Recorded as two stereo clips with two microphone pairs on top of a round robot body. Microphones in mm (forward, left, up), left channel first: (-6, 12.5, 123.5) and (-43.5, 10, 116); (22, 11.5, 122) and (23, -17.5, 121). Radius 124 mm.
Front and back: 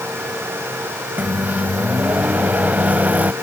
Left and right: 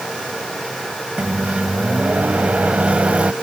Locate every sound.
1.2 s a microwave: 135° right